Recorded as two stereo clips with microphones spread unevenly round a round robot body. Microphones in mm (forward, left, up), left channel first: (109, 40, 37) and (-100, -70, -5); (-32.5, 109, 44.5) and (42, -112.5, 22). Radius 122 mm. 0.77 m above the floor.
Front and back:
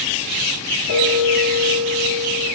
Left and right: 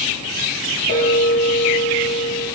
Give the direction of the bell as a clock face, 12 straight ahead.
10 o'clock.